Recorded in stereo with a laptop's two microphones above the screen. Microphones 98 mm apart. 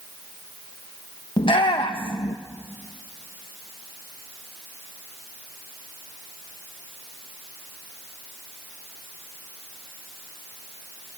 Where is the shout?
60° left (ahead or behind), 1.1 m.